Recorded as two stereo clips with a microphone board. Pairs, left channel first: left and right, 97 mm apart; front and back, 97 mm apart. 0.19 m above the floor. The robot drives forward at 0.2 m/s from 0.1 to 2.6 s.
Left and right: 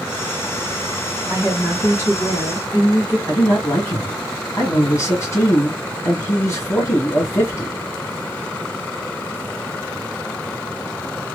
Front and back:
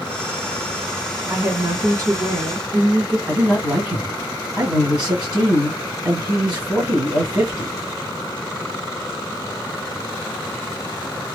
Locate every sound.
1.3 s a woman speaking: 130° left, 1.9 m; by 3.2 s 140° left, 2 m
3.3 s a man speaking: 110° left, 1.6 m